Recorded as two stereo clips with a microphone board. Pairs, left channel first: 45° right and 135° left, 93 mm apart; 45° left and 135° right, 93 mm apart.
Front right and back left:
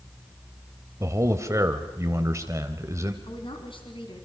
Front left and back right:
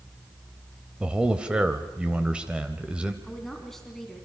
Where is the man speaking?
155° left, 1.2 m.